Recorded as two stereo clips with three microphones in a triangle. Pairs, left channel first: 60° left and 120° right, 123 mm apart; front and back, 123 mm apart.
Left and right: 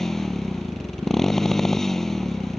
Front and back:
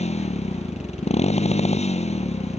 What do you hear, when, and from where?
0.0 s a motorcycle: 25° right